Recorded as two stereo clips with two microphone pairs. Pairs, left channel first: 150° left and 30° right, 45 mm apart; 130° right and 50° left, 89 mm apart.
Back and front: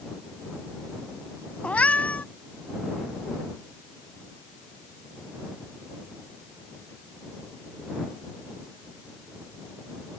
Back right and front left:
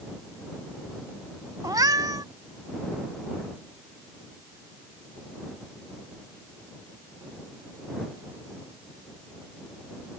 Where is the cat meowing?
95° left.